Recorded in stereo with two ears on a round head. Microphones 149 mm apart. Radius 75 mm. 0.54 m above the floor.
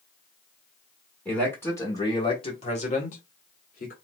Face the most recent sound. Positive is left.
turn(degrees=55)  # may be behind; listen again after turning